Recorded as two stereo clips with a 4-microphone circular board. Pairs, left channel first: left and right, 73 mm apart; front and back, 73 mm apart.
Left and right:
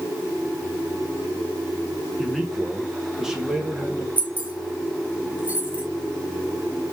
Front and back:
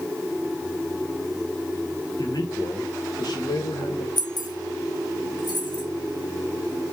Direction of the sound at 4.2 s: 20° right.